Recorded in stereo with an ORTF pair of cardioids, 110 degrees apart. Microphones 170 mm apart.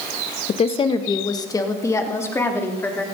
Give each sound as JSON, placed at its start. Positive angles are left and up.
{"t": 0.5, "sound": "a woman speaking", "azimuth_deg": 40, "distance_m": 1.0}